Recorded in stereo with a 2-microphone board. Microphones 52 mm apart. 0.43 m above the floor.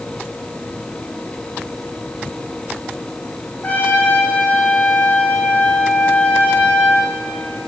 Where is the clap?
I don't hear a clap.